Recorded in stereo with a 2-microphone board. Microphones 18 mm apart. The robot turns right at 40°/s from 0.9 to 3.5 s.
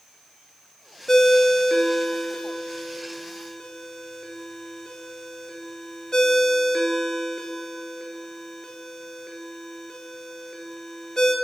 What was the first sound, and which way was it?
A ringtone, 30° left (ahead or behind).